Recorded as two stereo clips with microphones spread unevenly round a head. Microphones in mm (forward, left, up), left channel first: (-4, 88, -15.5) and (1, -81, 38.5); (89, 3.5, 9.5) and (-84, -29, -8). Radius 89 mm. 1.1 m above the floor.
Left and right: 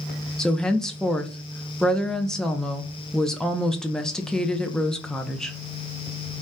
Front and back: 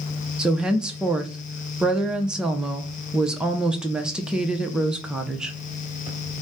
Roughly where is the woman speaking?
Behind left.